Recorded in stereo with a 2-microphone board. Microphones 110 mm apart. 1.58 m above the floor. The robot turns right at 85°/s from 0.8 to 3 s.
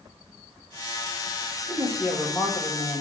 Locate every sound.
1.7 s a woman speaking: 45° right, 2 m; by 3.0 s 70° left, 2 m